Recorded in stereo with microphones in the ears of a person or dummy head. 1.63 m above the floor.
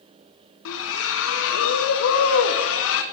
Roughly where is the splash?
Left.